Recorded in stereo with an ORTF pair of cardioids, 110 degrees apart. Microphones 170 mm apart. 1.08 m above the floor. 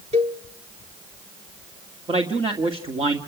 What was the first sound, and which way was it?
A cowbell, 35° right.